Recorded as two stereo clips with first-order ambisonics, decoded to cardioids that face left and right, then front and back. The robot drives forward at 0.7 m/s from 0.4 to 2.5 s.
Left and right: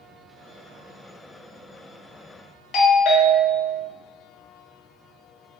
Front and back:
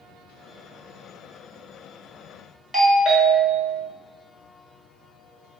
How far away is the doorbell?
About 1.0 m.